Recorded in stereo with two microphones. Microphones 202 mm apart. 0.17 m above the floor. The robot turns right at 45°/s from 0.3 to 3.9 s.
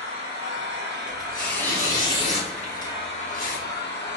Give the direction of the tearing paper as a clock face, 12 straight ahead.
12 o'clock.